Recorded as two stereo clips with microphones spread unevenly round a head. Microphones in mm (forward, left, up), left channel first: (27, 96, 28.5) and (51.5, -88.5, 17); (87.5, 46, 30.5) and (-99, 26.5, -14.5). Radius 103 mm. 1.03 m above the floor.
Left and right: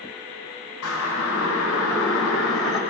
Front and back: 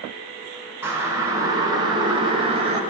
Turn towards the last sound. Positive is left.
turn(degrees=125)